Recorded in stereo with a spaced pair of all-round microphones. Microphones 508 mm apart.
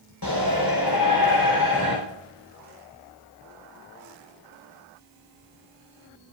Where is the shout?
45° left (ahead or behind), 4.5 m.